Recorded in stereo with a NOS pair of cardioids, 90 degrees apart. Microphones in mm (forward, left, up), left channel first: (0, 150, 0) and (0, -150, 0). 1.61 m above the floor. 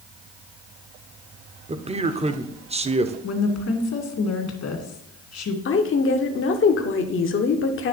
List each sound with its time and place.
1.7 s a man speaking: 20° right, 0.9 m
3.2 s a woman speaking: 60° left, 2.5 m
5.7 s a woman speaking: 45° left, 1.2 m